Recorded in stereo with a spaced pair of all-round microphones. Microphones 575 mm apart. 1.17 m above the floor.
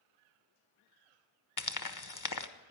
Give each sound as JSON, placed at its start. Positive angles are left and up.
{"t": 1.6, "sound": "frying", "side_deg": 35, "distance_m": 0.8}